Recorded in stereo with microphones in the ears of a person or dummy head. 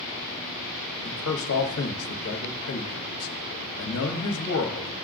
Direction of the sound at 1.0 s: 75° left (ahead or behind).